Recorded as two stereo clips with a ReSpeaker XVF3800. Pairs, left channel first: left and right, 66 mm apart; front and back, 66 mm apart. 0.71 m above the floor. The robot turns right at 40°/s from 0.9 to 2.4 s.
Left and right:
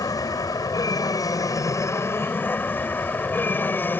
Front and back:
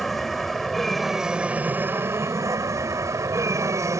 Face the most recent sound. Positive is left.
turn(degrees=145)